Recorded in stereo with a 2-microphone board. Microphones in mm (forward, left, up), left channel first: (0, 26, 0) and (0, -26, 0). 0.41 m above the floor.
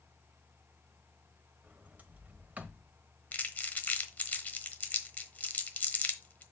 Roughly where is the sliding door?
Right.